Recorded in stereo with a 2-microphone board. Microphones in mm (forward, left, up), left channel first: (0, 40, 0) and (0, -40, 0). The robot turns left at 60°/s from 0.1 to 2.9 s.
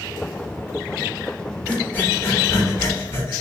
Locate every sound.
1.7 s breathing: 20° left (ahead or behind), 1.0 m; by 3.4 s 30° left (ahead or behind), 1.0 m